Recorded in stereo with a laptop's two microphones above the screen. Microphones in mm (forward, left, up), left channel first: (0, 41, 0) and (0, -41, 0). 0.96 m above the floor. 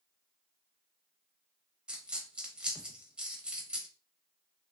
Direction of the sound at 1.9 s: 10° right (ahead or behind).